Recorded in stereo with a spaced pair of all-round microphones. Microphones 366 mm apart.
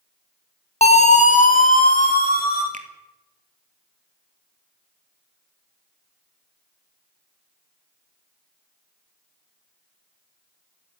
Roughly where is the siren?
Centre.